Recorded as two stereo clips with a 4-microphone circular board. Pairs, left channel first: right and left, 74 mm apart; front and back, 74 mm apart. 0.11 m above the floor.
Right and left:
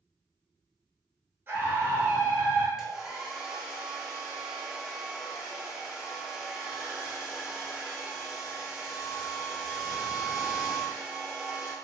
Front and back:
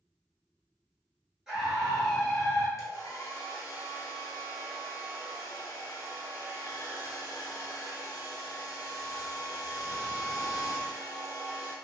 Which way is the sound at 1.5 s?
105° left.